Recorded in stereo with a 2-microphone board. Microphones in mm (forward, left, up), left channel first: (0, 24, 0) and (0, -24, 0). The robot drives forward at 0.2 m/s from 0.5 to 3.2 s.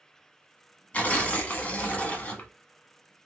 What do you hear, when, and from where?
0.9 s tearing paper: 35° left (ahead or behind), 0.9 m; by 2.5 s 30° left (ahead or behind), 1.0 m